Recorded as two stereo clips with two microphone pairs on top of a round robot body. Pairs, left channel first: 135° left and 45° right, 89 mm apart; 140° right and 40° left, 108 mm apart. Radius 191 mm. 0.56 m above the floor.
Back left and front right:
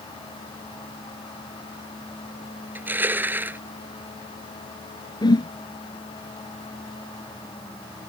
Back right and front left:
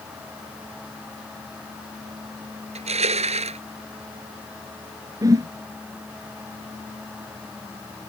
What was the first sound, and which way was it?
Crushing, 25° left.